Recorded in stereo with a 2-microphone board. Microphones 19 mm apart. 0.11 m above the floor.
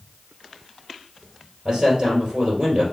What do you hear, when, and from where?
1.6 s a man speaking: 40° right (ahead or behind), 3 m